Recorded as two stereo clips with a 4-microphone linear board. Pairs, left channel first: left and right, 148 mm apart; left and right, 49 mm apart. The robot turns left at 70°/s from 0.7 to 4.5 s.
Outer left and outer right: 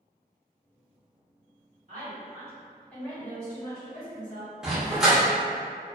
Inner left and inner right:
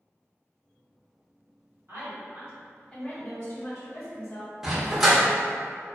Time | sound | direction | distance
1.9 | a woman speaking | 115° right | 1.4 m
4.6 | a dog barking | 5° right (ahead or behind) | 0.8 m